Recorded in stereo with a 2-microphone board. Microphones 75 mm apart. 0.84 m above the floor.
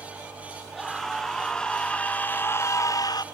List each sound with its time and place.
0.7 s a scream: 5° left (ahead or behind), 2.0 m; by 3.2 s 60° left (ahead or behind), 0.7 m